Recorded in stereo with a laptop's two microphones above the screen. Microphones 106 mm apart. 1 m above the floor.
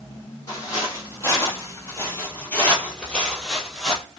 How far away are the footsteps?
About 1.5 m.